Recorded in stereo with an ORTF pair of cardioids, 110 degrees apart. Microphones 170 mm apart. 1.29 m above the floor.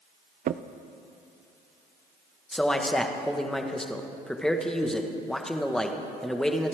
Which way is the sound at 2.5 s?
5° left.